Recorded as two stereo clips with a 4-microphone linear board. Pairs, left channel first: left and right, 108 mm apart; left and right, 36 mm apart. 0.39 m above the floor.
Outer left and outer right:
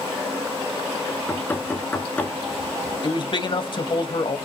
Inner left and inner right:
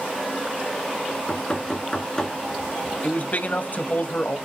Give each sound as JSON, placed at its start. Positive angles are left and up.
{"t": 1.1, "sound": "knocking", "side_deg": 15, "distance_m": 3.0}
{"t": 3.0, "sound": "a man speaking", "side_deg": 50, "distance_m": 1.8}